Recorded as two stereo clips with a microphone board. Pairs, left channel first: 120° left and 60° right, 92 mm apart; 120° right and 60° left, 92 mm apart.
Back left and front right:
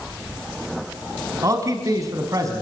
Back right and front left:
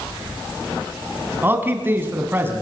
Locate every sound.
1.4 s a man speaking: 10° right, 3.5 m